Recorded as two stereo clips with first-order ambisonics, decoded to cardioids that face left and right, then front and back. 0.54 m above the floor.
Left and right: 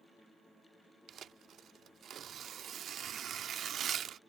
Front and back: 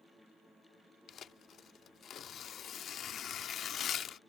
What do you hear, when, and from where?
1.1 s tearing paper: 40° right